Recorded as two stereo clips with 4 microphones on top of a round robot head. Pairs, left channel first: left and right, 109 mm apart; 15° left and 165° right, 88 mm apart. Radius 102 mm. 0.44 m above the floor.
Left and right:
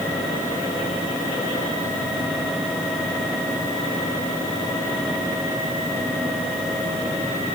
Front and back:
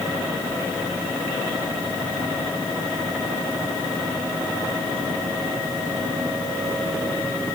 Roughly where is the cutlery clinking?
No cutlery clinking in this recording.